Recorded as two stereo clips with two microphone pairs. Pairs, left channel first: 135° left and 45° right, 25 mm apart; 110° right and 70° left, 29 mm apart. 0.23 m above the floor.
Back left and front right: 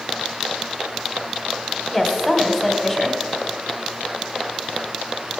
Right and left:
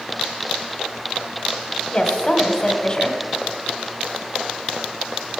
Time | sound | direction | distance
1.9 | a woman speaking | 130° right | 1.1 m